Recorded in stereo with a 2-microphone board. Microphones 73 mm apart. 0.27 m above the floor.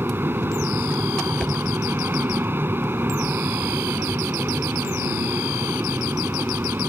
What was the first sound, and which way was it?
An aircraft, 30° right (ahead or behind).